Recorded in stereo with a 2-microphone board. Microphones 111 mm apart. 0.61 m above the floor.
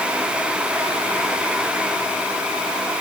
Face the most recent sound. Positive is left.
No sound to turn to.